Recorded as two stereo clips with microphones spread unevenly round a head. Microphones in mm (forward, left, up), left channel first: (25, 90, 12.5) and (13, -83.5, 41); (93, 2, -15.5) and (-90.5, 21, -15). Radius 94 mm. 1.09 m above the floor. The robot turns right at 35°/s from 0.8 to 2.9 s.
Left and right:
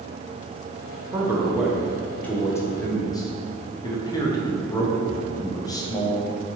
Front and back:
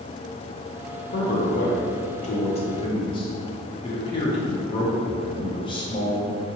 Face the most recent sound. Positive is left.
turn(degrees=45)